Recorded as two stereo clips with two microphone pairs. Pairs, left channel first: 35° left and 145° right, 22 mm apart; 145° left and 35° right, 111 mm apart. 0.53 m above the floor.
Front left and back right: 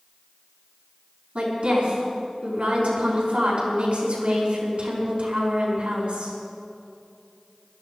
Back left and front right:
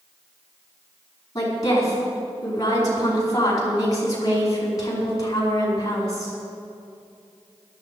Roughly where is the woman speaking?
Behind.